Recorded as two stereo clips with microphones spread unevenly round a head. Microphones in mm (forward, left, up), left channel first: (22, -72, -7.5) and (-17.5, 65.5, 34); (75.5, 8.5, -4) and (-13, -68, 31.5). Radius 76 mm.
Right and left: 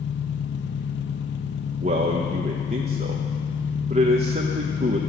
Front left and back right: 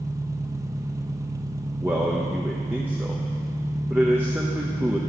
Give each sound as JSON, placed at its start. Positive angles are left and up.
{"t": 0.0, "sound": "an engine running", "azimuth_deg": -90, "distance_m": 0.9}
{"t": 1.8, "sound": "a man speaking", "azimuth_deg": 150, "distance_m": 1.0}